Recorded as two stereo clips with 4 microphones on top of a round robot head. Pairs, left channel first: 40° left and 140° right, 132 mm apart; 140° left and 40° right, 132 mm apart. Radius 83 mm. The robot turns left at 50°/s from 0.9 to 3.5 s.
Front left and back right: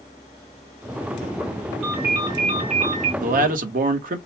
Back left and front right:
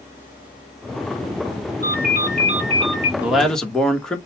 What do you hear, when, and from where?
1.8 s a ringtone: 50° right, 1.9 m; by 3.1 s 115° right, 1.9 m
3.2 s a man speaking: 120° right, 1.1 m; by 4.2 s 135° right, 1.1 m